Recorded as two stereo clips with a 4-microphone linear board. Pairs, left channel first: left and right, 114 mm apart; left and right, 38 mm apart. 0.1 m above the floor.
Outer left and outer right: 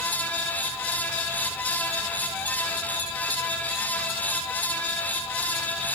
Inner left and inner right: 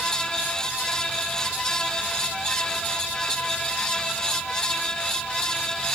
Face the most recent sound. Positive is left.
No sound to turn to.